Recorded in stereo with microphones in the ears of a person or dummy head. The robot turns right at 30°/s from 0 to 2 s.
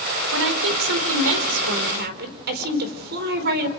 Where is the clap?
I don't hear a clap.